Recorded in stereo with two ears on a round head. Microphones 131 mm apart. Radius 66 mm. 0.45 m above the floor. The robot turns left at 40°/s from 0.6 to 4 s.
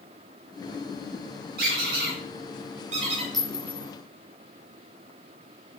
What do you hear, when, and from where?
1.6 s a squeak: 75° right (ahead or behind), 3 m; by 3.2 s 35° right (ahead or behind), 3 m
3.3 s a clink: centre (ahead or behind), 3 m; by 3.9 s 20° left (ahead or behind), 3 m